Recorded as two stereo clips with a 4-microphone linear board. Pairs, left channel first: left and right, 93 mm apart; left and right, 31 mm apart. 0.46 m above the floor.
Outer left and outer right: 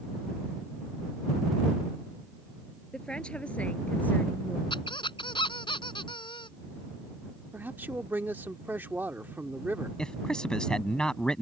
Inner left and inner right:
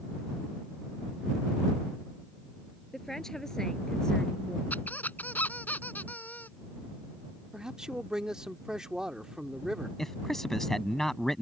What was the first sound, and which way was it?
A woman speaking, 10° left (ahead or behind).